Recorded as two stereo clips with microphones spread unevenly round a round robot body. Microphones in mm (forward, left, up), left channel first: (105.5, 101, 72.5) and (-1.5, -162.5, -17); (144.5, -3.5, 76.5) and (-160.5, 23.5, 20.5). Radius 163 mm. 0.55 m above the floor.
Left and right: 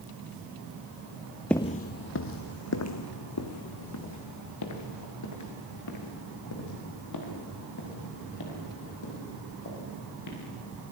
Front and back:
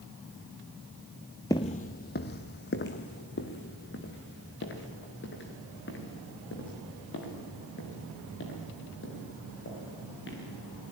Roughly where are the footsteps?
Ahead left.